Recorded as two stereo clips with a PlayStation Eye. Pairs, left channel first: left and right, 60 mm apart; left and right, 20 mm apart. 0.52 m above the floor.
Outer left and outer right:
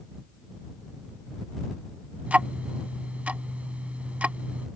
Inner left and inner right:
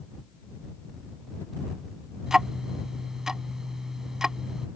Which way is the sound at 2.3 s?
25° right (ahead or behind).